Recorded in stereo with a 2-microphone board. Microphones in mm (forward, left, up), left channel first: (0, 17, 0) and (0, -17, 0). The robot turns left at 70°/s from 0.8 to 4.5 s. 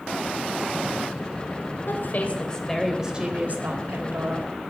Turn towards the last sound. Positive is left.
turn(degrees=-120)